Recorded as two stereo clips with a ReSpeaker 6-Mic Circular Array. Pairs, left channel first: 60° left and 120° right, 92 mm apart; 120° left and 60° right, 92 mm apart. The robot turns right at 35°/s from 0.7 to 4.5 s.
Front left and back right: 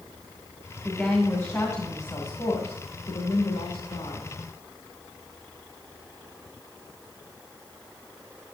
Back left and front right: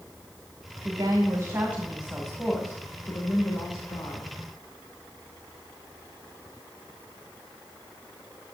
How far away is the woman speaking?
About 2 m.